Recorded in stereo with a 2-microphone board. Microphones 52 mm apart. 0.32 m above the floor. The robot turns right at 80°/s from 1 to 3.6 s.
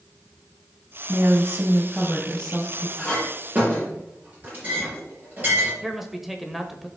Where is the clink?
15° left (ahead or behind), 5.5 m; by 5.7 s 35° right (ahead or behind), 5.5 m.